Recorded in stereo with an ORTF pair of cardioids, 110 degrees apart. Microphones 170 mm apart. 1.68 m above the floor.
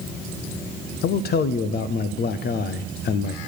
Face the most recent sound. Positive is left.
turn(degrees=70)